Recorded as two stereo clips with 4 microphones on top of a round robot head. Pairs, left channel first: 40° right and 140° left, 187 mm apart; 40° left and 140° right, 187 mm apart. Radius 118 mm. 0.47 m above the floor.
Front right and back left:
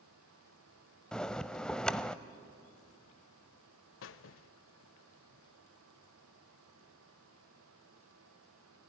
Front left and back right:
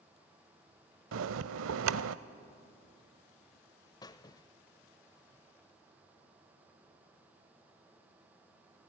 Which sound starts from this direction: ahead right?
A squeak, at 4.0 s.